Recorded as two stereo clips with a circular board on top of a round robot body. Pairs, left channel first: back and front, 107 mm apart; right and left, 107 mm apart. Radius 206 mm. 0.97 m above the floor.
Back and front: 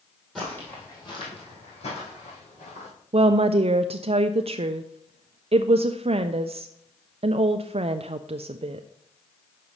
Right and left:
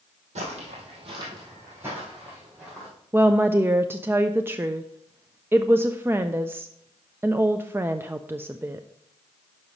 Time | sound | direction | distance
0.3 | footsteps | 90° left | 1.8 m
3.1 | a woman speaking | 20° left | 0.5 m